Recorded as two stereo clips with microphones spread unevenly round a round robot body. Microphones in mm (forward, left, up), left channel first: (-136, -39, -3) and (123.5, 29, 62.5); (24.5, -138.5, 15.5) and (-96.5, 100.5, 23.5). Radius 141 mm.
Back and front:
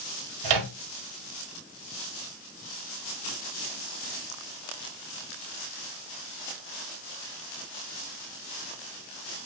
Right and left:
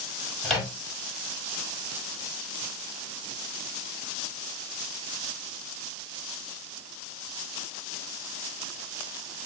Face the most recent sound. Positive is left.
turn(degrees=25)